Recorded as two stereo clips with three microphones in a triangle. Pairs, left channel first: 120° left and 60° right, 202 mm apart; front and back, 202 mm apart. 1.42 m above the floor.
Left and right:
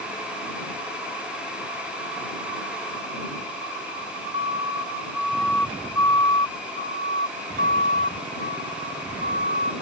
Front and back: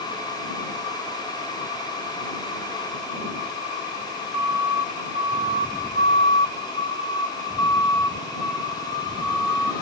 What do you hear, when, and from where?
4.3 s a siren: 5° left; by 9.7 s 85° left